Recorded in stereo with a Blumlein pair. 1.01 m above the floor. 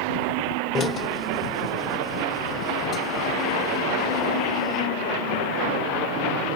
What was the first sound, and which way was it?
A drill, 20° left.